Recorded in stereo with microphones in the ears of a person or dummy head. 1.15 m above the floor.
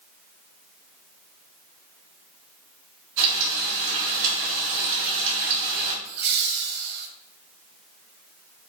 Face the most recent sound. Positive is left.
turn(degrees=-55)  # may be behind; listen again after turning